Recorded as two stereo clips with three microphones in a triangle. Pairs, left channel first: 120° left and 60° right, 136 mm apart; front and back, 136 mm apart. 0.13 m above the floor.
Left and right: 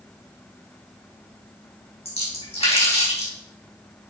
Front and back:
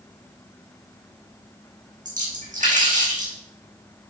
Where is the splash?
160° left, 4 m.